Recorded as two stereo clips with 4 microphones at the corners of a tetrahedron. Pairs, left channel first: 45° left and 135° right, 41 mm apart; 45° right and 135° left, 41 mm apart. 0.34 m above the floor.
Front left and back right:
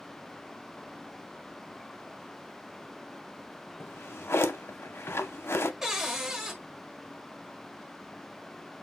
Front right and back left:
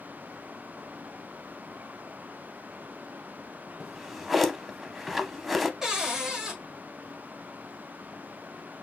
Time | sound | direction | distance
3.8 | a drawer | 45° left | 0.5 m
5.8 | a cupboard door | 175° left | 1.3 m